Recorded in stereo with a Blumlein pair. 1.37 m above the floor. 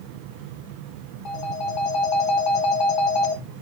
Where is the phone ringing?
30° left, 1.5 m.